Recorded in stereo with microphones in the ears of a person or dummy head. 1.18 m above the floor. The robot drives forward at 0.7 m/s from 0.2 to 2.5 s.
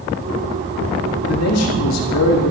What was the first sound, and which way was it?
A man speaking, 80° left.